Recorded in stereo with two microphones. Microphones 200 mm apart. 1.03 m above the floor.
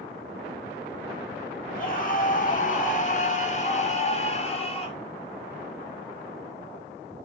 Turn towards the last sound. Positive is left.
turn(degrees=30)  # may be behind; listen again after turning